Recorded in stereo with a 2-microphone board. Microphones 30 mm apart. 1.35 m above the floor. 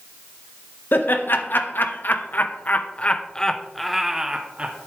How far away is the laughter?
About 1.6 m.